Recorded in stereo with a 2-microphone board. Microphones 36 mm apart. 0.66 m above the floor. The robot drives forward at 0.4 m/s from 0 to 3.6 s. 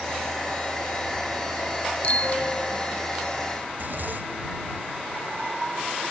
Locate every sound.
2.0 s a bicycle bell: 40° left (ahead or behind)
3.7 s a zipper: 60° right (ahead or behind)